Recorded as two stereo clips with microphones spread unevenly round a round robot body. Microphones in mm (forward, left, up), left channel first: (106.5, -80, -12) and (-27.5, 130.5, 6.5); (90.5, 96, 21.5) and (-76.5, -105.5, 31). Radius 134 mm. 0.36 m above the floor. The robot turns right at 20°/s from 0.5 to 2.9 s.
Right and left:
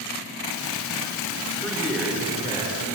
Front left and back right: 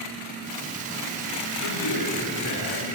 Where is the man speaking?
25° left, 6 m; by 2.9 s 50° left, 6 m.